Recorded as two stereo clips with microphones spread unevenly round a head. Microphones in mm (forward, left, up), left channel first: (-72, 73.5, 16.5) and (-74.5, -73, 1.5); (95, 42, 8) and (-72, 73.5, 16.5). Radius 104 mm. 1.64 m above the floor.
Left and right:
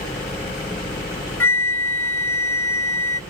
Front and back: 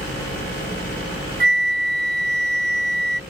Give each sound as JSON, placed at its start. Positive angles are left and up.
{"t": 1.4, "sound": "a flute", "azimuth_deg": 160}